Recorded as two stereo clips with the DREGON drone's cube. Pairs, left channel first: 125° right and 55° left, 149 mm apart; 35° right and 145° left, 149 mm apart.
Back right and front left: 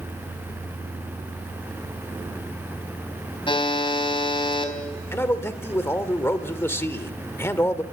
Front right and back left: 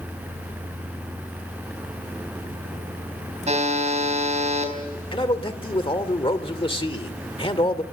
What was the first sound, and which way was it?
A buzzer, straight behind.